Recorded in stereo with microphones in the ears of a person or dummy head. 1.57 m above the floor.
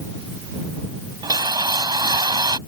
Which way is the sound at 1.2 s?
25° right (ahead or behind).